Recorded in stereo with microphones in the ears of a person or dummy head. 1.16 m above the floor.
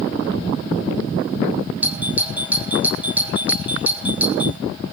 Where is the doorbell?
10° right (ahead or behind), 0.8 m.